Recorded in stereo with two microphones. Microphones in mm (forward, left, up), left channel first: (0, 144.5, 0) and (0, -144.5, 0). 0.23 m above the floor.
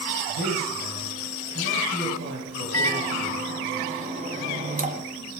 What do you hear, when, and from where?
0.3 s a man speaking: 45° right (ahead or behind), 6 m
2.7 s a microwave: 25° right (ahead or behind), 1.5 m